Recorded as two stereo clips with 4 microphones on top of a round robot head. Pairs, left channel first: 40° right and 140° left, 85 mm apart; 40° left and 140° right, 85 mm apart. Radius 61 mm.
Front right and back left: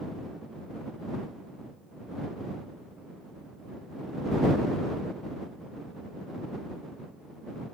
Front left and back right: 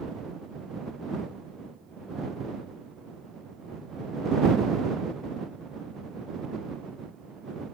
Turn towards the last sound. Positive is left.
No sound to turn to.